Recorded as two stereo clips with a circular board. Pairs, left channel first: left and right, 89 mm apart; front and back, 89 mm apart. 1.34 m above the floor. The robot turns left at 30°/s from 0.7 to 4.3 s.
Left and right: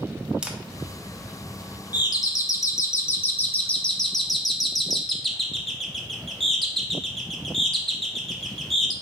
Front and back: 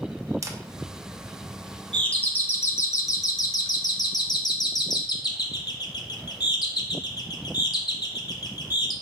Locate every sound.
0.4 s a camera shutter: 165° right, 0.6 m
1.9 s a doorbell: 75° left, 0.7 m; by 8.9 s straight ahead, 0.7 m